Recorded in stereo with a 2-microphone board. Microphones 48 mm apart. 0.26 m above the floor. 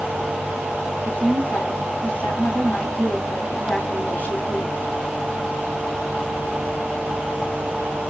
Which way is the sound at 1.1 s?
40° left (ahead or behind).